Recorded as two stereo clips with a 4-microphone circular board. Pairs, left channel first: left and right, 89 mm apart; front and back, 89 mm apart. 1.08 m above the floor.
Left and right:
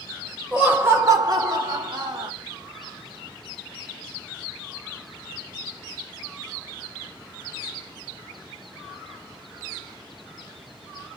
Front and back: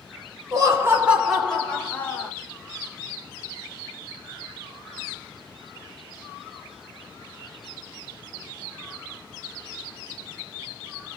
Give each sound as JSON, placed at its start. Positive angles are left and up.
{"t": 0.5, "sound": "laughter", "azimuth_deg": -165, "distance_m": 0.7}